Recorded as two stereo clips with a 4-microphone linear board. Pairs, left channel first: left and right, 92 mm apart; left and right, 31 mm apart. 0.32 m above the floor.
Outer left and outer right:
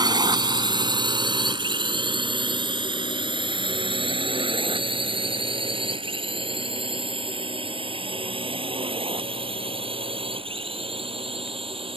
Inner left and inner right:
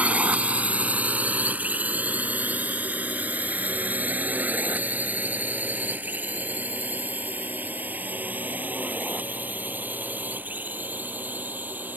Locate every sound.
0.0 s a drone: 50° right (ahead or behind); by 12.0 s 75° right (ahead or behind)